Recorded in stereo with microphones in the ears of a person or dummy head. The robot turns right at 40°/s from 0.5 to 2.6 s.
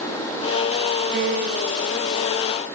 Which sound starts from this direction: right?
A piano, at 1.1 s.